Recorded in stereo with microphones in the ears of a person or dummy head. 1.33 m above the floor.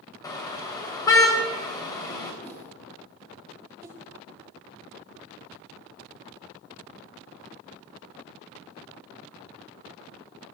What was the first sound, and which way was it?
A car horn, 20° left (ahead or behind).